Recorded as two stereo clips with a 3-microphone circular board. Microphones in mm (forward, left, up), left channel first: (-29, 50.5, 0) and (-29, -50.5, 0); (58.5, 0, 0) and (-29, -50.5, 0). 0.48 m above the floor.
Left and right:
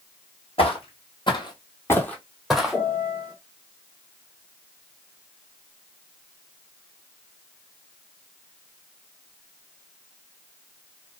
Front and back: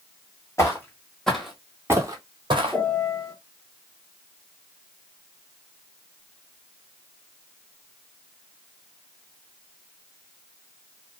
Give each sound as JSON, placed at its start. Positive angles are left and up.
{"t": 0.6, "sound": "footsteps", "azimuth_deg": 90, "distance_m": 1.1}
{"t": 2.7, "sound": "a piano", "azimuth_deg": 100, "distance_m": 1.3}